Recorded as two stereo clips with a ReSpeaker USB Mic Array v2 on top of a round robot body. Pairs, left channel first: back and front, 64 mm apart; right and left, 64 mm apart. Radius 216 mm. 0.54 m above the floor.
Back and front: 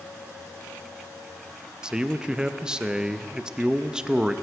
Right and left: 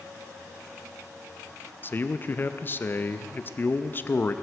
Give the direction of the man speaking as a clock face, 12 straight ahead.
2 o'clock.